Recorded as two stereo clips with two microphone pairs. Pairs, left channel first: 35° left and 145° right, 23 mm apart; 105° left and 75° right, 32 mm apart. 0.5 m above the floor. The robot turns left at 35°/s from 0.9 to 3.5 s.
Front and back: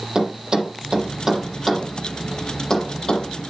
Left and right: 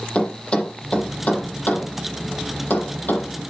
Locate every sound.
0.1 s a thud: 160° left, 7 m; by 3.3 s 75° left, 7 m